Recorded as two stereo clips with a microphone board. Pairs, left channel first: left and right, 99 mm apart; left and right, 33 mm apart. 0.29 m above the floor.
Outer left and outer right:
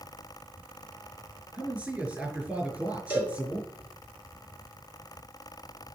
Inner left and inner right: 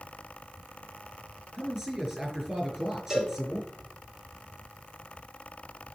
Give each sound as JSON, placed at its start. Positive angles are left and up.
{"t": 1.5, "sound": "a man speaking", "side_deg": -15, "distance_m": 5.0}
{"t": 3.1, "sound": "a cowbell", "side_deg": -20, "distance_m": 3.5}